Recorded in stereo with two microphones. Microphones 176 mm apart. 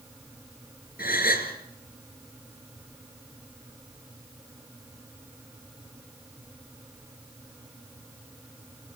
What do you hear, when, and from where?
1.0 s a gasp: 60° left (ahead or behind), 3.5 m